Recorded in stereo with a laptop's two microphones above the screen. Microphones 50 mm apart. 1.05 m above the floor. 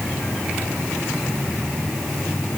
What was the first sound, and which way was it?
Only background noise.